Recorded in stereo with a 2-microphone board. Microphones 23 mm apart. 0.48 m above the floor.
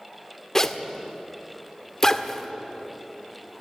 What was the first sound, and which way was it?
A zipper, 20° left (ahead or behind).